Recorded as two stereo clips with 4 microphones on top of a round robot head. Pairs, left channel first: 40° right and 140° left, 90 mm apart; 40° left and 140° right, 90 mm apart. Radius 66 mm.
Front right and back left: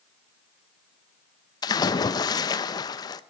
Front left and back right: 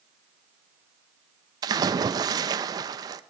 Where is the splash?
90° right, 0.5 m.